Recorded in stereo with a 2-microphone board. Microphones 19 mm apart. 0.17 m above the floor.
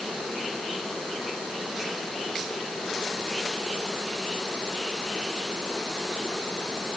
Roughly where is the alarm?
No alarm in this recording.